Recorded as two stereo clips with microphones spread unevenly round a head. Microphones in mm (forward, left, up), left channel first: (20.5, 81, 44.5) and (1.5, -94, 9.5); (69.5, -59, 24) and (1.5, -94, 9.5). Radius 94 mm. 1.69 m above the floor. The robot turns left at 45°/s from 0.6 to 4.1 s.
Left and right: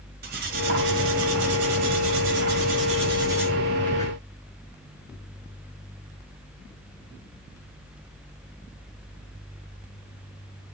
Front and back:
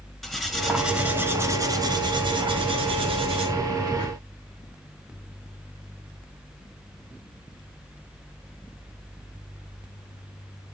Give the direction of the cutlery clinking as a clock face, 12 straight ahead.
2 o'clock.